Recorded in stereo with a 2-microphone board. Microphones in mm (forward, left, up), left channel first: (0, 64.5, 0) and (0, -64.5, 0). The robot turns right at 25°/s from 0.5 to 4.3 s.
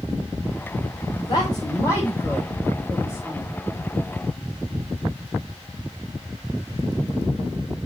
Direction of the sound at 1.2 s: 45° left (ahead or behind).